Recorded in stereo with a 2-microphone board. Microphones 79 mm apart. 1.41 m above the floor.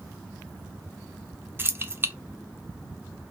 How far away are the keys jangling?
About 0.5 m.